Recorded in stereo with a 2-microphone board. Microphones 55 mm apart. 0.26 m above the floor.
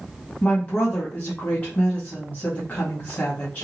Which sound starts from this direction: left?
A woman speaking, at 0.4 s.